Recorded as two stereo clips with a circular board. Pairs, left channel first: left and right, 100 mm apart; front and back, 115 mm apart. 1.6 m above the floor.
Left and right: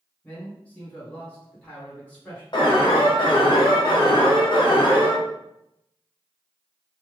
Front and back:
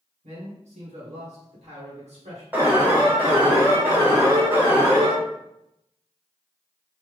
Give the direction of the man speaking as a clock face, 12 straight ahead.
7 o'clock.